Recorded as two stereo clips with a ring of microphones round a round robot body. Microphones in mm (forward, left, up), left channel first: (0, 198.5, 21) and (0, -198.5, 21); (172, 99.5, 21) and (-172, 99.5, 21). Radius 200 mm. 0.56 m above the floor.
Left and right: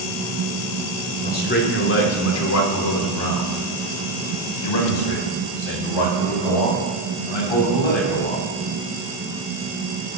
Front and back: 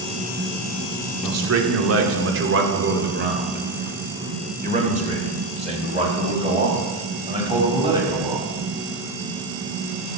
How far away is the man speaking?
About 1.9 m.